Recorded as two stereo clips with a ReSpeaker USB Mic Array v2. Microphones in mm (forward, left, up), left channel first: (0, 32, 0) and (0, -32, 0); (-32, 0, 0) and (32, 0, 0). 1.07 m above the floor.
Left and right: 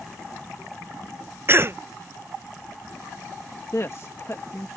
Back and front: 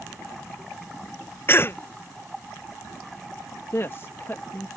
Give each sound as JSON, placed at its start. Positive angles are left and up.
{"t": 1.5, "sound": "a cough", "azimuth_deg": -135}
{"t": 3.7, "sound": "a woman speaking", "azimuth_deg": 130}